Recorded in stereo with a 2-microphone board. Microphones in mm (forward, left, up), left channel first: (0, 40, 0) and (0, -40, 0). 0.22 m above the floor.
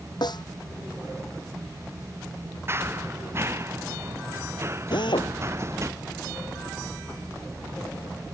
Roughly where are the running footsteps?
Right.